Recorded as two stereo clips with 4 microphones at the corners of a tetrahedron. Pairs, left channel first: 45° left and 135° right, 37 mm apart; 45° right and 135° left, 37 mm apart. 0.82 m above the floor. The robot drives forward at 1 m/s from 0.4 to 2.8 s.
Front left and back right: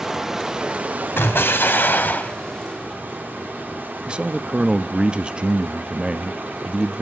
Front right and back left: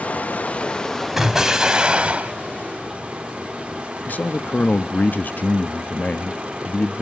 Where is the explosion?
50° left, 2 m; by 2.3 s 85° left, 1.6 m.